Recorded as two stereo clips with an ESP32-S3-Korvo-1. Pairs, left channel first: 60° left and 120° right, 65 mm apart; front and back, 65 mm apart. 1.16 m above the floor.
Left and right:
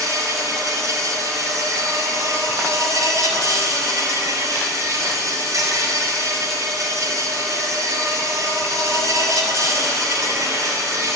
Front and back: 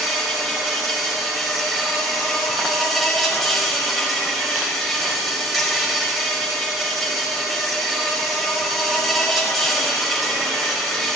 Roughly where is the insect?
Right.